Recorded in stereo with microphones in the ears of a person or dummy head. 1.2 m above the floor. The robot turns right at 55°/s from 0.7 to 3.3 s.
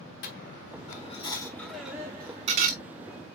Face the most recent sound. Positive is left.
turn(degrees=-100)